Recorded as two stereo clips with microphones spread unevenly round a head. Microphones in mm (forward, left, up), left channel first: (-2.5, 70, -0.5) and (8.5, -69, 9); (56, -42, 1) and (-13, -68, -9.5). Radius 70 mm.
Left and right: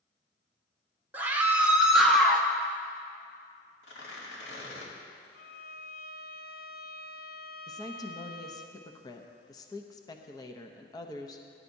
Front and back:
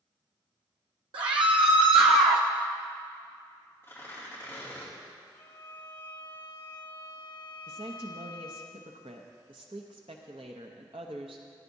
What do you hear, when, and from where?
1.1 s a scream: 160° right, 1.6 m; by 2.5 s 175° left, 0.9 m
3.8 s tearing paper: 95° left, 2.5 m
5.3 s a violin: 75° left, 0.7 m
7.7 s a woman speaking: 160° left, 0.8 m